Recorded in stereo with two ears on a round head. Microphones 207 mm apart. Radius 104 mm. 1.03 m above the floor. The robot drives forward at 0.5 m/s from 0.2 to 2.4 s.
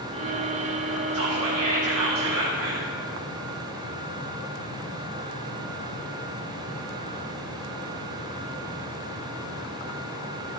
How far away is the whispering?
About 1.3 m.